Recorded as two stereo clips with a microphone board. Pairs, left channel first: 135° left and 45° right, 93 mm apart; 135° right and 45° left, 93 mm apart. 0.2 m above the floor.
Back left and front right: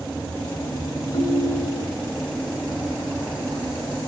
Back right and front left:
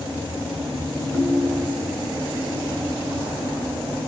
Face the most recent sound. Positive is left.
turn(degrees=150)